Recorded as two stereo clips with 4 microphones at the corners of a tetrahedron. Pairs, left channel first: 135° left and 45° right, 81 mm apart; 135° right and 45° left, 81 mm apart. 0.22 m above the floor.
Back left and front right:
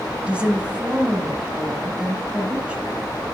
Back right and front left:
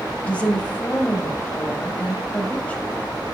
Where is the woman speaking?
90° right, 0.9 m.